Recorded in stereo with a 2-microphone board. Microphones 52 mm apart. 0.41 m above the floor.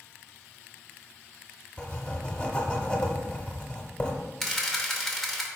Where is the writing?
20° left (ahead or behind), 0.8 m.